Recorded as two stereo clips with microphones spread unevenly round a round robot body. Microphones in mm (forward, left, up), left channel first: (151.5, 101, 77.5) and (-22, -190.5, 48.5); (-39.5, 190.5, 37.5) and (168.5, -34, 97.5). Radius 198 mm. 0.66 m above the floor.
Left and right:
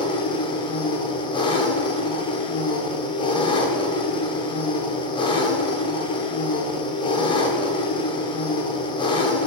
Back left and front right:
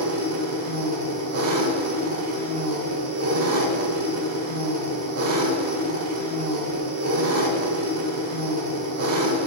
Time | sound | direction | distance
0.0 | an engine running | 15° right | 0.8 m